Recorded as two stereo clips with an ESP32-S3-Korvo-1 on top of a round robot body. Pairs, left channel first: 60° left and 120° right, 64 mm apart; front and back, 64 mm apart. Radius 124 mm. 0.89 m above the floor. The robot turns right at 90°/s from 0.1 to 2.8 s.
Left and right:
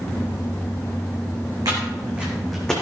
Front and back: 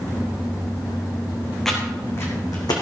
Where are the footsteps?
85° right, 3 m; by 2.8 s 15° right, 2.5 m.